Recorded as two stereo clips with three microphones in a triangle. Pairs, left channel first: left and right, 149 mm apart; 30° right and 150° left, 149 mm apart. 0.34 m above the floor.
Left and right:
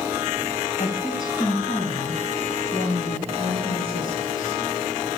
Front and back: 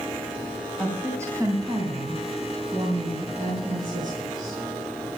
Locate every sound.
0.8 s a woman speaking: 70° left, 2.5 m; by 4.6 s 125° left, 6 m